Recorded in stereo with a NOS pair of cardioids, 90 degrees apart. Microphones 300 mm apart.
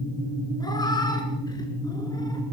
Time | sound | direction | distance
0.6 | a cat meowing | 15° left | 5 m